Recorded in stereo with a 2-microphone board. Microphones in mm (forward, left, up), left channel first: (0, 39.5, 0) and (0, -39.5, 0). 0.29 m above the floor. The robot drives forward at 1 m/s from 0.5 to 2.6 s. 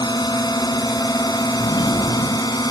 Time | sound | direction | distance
0.0 | a drone | 65° left (ahead or behind) | ?
1.6 | a sliding door | 70° left (ahead or behind) | ?